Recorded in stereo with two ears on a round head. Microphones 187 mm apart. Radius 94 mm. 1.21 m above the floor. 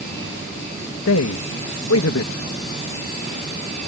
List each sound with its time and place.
1.1 s a man speaking: 75° left (ahead or behind)